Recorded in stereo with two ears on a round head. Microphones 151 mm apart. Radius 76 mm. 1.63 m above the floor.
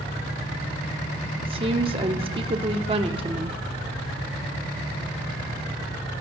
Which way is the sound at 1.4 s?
35° right (ahead or behind).